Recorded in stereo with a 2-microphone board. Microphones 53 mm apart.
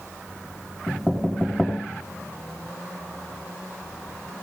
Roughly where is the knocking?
Centre.